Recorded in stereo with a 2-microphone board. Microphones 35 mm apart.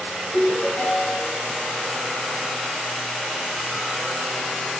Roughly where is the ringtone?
Left.